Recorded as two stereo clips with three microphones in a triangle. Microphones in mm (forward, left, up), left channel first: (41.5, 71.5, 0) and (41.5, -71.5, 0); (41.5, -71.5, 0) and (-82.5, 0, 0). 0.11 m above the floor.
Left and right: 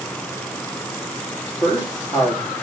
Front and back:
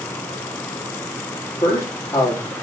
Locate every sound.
1.6 s a man speaking: 35° left, 2.5 m